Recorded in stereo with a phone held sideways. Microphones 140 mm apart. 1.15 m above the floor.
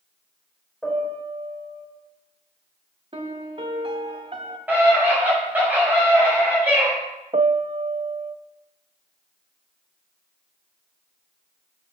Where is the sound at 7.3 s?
50° right (ahead or behind), 0.6 m.